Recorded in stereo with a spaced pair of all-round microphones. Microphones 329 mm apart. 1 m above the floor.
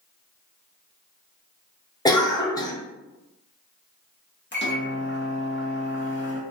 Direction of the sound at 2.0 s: 10° left (ahead or behind).